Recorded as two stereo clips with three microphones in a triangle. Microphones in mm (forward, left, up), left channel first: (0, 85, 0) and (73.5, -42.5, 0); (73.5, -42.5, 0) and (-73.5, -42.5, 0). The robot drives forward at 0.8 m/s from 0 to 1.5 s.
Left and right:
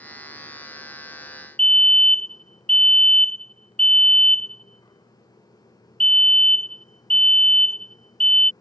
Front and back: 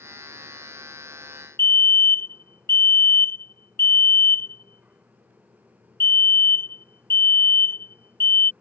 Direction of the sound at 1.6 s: 45° left.